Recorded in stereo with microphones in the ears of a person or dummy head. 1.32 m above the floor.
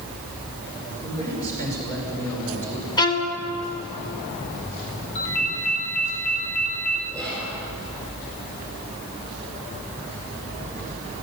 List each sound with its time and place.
1.0 s a man speaking: 20° left (ahead or behind), 5.5 m; by 2.9 s 15° left (ahead or behind), 4.5 m
3.0 s a violin: 25° left (ahead or behind), 1.5 m
5.2 s a ringtone: 60° left (ahead or behind), 3.5 m
7.1 s whispering: 15° left (ahead or behind), 4.5 m